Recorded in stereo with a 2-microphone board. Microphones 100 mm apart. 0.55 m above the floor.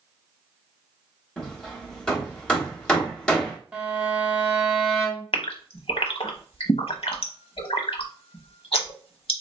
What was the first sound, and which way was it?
Hammering, 10° left (ahead or behind).